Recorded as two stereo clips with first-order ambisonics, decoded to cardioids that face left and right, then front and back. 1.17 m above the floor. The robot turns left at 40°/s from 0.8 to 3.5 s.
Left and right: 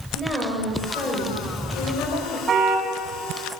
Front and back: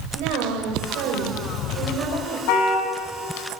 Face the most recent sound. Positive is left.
turn(degrees=-60)